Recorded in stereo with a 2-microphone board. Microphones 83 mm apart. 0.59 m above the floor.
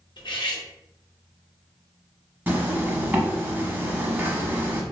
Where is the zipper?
20° right (ahead or behind), 0.7 m.